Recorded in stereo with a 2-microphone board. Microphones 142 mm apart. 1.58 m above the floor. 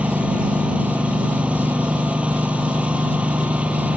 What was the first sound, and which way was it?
A lawn mower, 10° right (ahead or behind).